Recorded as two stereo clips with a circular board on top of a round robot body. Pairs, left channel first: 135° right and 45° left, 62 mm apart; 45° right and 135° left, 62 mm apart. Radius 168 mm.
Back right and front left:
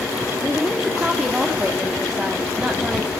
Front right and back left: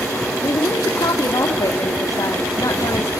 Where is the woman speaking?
30° right, 1.9 m.